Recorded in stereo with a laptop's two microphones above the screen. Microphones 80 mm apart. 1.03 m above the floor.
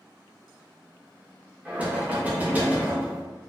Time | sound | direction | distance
1.6 | knocking | 20° right (ahead or behind) | 0.5 m